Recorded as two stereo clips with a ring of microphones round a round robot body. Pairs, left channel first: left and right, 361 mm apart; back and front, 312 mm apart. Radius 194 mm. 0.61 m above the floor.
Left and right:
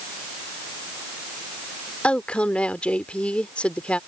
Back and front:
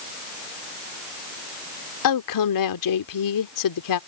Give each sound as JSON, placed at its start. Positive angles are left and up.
{"t": 2.0, "sound": "a woman speaking", "azimuth_deg": 175}